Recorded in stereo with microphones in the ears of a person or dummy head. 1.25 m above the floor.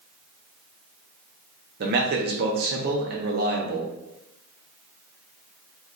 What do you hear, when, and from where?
1.8 s a man speaking: 55° right (ahead or behind), 0.7 m